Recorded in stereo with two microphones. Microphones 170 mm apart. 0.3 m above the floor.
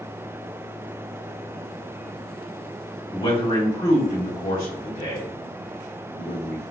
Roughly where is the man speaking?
Left.